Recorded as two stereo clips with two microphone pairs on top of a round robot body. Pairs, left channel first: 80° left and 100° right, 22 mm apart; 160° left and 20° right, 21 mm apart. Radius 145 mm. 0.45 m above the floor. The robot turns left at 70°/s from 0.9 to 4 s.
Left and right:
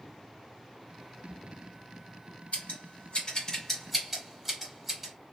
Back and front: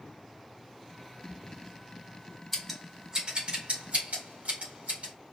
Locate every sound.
2.5 s scissors: 90° left, 2.5 m; by 5.1 s 15° right, 2.5 m